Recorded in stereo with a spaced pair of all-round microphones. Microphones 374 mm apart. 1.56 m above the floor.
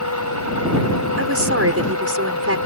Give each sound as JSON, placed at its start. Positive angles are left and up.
{"t": 0.0, "sound": "a machine running", "side_deg": 50}
{"t": 1.2, "sound": "a woman speaking", "side_deg": -40}